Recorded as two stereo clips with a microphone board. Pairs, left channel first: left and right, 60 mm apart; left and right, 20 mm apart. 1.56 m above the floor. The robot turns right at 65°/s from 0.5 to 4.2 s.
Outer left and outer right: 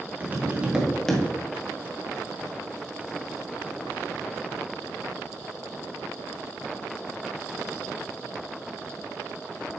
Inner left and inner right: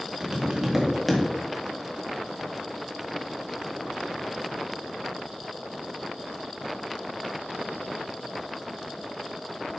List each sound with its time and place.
0.2 s tapping: 30° right, 1.4 m; by 1.2 s 20° left, 1.4 m